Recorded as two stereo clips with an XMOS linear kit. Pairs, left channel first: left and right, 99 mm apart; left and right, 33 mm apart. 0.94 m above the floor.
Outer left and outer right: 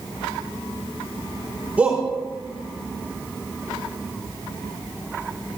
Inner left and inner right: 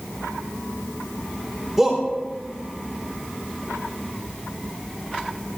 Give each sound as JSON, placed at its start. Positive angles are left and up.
{"t": 1.8, "sound": "a shout", "side_deg": -15, "distance_m": 3.0}